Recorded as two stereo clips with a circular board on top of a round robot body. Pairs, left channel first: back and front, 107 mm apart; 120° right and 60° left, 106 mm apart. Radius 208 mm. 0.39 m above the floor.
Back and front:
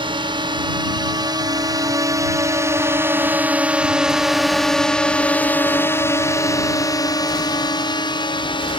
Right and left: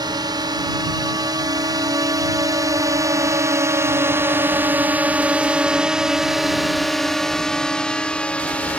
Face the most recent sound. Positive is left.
turn(degrees=165)